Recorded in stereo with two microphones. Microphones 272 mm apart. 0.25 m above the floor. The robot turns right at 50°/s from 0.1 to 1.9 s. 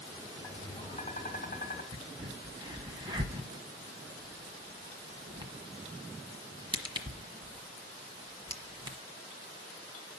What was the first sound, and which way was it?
Tapping, 20° left.